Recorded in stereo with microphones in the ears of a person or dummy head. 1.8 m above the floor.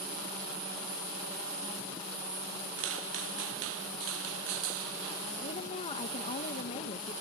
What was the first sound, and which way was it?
Footsteps, 70° right (ahead or behind).